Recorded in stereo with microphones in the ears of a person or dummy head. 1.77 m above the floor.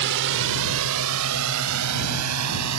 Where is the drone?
60° right (ahead or behind); by 2.8 s 90° right.